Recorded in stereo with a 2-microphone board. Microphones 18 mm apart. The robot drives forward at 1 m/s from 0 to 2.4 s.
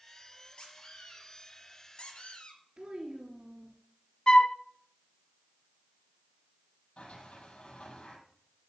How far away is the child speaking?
About 3 m.